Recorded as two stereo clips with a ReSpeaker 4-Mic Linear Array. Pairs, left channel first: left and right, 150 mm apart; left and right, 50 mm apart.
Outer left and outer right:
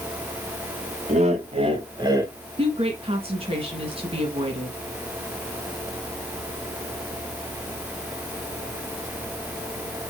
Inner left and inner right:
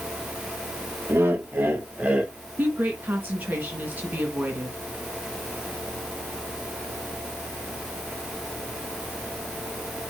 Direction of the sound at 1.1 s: 50° right (ahead or behind).